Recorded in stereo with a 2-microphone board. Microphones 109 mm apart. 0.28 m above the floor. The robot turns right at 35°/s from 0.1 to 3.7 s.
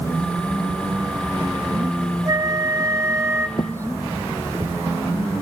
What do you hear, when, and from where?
2.2 s a flute: 100° right, 1.1 m; by 3.5 s 55° right, 1.1 m
3.6 s footsteps: 45° left (ahead or behind), 0.7 m; by 4.8 s 25° right (ahead or behind), 1.7 m